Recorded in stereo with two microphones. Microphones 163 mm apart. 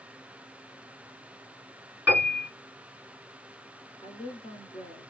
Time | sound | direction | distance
2.1 | a piano | 10° right (ahead or behind) | 2.5 m
4.0 | a woman speaking | 30° left (ahead or behind) | 2 m